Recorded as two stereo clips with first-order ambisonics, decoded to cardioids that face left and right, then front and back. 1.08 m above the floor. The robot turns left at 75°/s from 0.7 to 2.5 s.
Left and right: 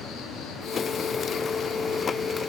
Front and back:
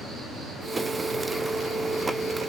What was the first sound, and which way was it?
An insect, 115° left.